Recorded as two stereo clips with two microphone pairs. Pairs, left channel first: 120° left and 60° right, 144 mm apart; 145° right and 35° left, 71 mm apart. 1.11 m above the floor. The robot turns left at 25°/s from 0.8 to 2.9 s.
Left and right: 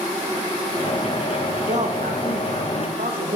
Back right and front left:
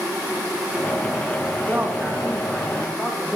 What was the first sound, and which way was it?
A man speaking, 30° right.